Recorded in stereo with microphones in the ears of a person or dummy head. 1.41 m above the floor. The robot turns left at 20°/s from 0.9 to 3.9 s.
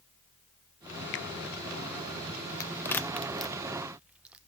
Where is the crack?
15° left (ahead or behind), 0.7 m; by 4.4 s 10° right (ahead or behind), 0.7 m.